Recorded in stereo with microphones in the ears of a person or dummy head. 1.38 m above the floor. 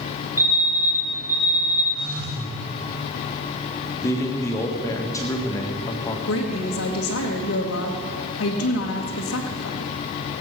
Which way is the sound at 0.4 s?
10° right (ahead or behind).